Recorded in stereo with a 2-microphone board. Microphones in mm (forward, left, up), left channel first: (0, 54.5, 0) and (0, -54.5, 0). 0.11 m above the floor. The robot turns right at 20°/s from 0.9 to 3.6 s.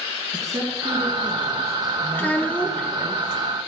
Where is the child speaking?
15° left (ahead or behind), 0.6 m; by 2.9 s 10° left (ahead or behind), 0.6 m.